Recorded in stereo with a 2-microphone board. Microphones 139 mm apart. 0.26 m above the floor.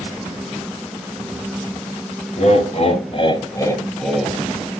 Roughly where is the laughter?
Left.